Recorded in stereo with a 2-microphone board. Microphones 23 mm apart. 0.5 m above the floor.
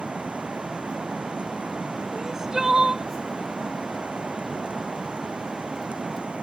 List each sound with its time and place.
0.0 s running water: 65° right (ahead or behind)
2.1 s crying: 25° right (ahead or behind)